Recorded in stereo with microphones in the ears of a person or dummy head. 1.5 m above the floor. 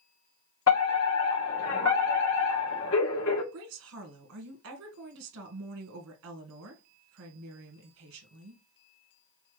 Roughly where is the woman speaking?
Right.